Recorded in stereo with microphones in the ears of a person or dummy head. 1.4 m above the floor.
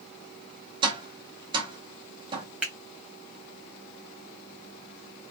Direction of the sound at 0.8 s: 35° right (ahead or behind).